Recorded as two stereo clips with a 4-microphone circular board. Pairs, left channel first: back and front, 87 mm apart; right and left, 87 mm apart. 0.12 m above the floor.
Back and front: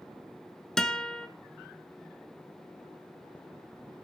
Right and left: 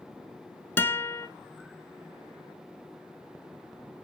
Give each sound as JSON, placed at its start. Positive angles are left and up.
{"t": 0.8, "sound": "a guitar", "azimuth_deg": -105, "distance_m": 0.7}